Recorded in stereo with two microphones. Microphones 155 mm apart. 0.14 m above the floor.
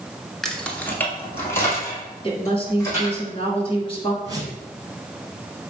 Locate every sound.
0.4 s keys jangling: centre (ahead or behind), 0.9 m; by 3.2 s 20° left (ahead or behind), 4.5 m
2.2 s a woman speaking: 35° left (ahead or behind), 1.6 m
4.2 s a whoosh: 25° right (ahead or behind), 1.6 m